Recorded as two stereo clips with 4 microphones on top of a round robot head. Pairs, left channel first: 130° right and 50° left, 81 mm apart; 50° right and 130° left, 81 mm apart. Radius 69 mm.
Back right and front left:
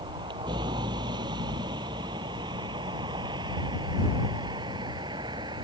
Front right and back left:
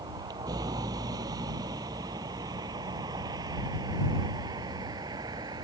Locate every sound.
0.0 s a vehicle: 85° left